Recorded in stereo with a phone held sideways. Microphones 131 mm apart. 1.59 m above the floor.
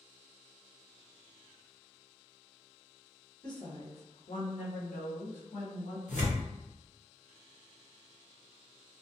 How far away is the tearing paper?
About 1.0 m.